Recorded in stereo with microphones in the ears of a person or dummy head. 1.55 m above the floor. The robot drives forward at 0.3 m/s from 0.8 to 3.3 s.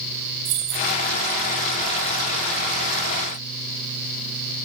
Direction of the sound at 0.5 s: 55° right (ahead or behind).